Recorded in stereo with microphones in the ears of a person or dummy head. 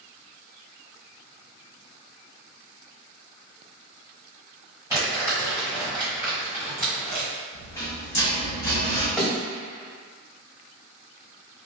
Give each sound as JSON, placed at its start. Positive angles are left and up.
{"t": 4.9, "sound": "crumpling", "side_deg": -20, "distance_m": 1.7}
{"t": 7.5, "sound": "a rattle", "side_deg": 15, "distance_m": 1.0}
{"t": 9.2, "sound": "a thud", "side_deg": -5, "distance_m": 1.2}